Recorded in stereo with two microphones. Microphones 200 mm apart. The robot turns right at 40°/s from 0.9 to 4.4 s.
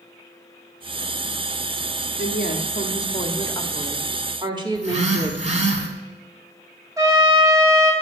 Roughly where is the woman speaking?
Behind left.